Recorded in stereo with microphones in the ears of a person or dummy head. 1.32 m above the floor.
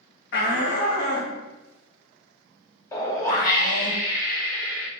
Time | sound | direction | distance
0.3 | a shout | 50° left (ahead or behind) | 0.5 m
2.9 | a whoosh | 25° left (ahead or behind) | 0.7 m